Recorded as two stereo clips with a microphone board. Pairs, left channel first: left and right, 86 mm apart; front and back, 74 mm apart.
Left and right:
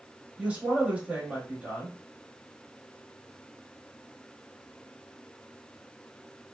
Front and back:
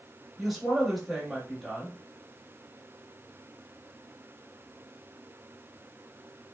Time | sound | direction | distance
0.4 | a woman speaking | 95° right | 0.9 m